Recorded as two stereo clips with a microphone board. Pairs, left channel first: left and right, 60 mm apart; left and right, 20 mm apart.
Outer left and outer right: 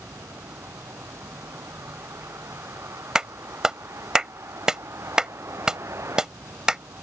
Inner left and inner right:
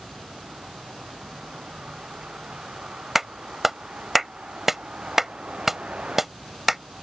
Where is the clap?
10° right (ahead or behind).